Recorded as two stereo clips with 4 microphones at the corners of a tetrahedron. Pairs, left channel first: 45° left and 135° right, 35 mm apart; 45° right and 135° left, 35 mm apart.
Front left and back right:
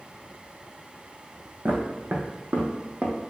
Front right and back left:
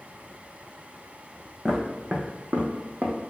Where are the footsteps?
150° right, 1.1 m; by 3.1 s 160° left, 0.9 m.